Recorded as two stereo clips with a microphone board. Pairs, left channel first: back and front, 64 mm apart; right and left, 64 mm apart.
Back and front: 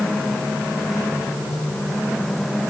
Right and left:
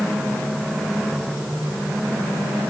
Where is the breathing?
I don't hear breathing.